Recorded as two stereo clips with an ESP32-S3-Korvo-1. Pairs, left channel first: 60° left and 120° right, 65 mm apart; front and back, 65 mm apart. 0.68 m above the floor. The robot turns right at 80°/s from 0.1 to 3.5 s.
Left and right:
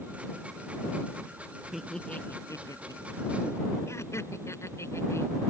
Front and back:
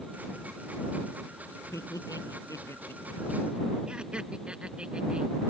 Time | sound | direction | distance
1.7 | laughter | 35° right | ?